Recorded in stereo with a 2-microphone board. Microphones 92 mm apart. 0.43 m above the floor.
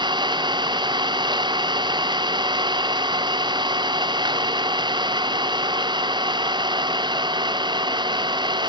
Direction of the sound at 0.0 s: 60° right (ahead or behind).